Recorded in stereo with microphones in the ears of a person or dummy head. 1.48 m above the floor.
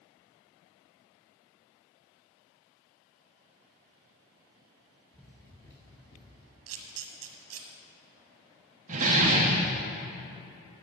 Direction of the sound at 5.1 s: 10° left (ahead or behind).